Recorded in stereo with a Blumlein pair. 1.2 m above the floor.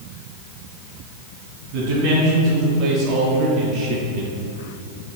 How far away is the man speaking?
About 1.8 m.